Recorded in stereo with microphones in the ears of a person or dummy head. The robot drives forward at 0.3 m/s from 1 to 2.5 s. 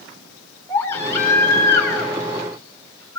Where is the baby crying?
10° left (ahead or behind), 4 m.